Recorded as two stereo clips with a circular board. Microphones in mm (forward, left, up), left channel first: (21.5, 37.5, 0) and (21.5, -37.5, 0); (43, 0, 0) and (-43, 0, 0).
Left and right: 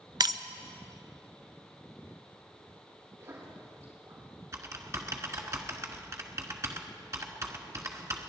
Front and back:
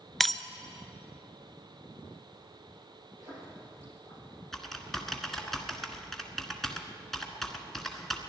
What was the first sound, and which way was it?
Breaking glass, 90° right.